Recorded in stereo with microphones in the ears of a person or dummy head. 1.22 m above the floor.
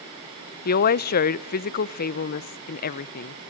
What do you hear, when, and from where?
0.7 s a woman speaking: 45° left (ahead or behind), 0.7 m